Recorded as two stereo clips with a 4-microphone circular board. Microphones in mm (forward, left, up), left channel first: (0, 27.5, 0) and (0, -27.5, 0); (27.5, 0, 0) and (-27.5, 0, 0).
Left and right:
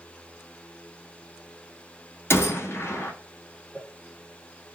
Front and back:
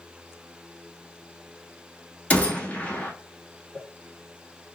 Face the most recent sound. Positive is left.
turn(degrees=-40)